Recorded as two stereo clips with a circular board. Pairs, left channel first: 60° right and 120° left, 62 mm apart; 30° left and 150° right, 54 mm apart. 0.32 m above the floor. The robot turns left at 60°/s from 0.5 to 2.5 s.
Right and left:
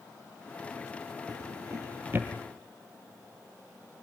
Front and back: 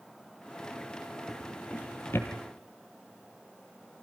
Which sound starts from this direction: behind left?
A drawer, at 1.3 s.